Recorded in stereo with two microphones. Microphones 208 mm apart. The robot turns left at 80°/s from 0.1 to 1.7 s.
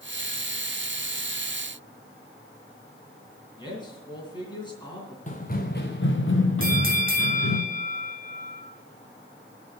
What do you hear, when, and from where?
3.6 s a man speaking: 20° left (ahead or behind), 3.5 m
5.3 s running footsteps: 35° left (ahead or behind), 1.3 m; by 7.6 s 80° left, 1.9 m
6.6 s a bell: 45° right (ahead or behind), 1.7 m